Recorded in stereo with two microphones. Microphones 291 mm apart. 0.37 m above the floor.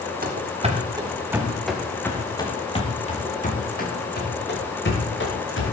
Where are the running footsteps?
30° right (ahead or behind), 2.5 m; by 5.7 s 45° left (ahead or behind), 5.5 m.